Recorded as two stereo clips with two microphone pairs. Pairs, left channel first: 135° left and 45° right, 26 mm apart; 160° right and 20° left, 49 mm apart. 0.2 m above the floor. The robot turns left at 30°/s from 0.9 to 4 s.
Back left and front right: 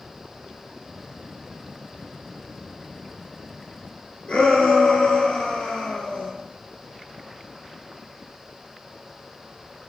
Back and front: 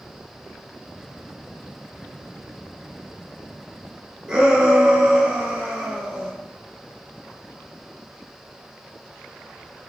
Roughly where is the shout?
Left.